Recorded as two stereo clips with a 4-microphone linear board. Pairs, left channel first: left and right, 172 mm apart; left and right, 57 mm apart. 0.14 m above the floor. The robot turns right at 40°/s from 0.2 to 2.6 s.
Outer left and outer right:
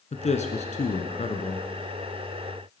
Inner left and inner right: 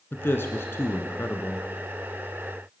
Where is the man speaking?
70° left, 1.3 m; by 1.7 s 130° left, 1.3 m.